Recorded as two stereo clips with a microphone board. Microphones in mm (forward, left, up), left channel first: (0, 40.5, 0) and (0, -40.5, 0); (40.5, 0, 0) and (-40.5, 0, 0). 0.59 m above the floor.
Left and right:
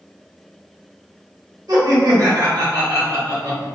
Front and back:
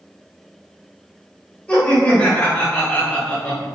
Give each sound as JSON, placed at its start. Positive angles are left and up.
{"t": 1.7, "sound": "laughter", "azimuth_deg": -70, "distance_m": 2.0}